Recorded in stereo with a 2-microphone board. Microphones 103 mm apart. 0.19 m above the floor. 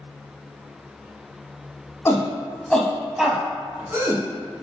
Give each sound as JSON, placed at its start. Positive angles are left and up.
{"t": 2.0, "sound": "a shout", "side_deg": 30, "distance_m": 1.1}